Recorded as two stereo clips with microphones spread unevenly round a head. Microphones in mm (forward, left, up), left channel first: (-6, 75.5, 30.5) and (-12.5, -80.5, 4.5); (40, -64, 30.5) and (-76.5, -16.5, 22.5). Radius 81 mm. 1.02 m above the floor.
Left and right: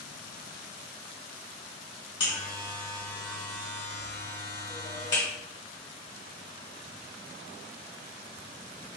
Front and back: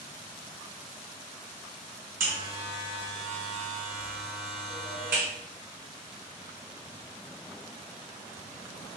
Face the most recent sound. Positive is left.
turn(degrees=140)